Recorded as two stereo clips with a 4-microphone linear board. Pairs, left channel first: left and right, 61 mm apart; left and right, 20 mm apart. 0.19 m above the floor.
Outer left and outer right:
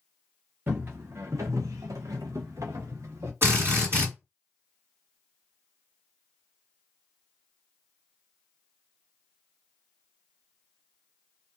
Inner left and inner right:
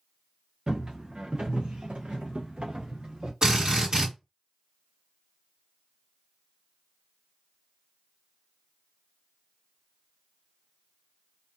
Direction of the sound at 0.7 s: 40° right (ahead or behind).